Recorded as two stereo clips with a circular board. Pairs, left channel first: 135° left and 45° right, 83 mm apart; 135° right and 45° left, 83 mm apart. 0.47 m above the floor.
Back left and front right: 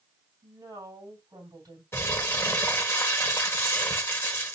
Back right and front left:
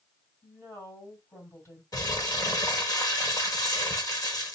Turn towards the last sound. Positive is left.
turn(degrees=-170)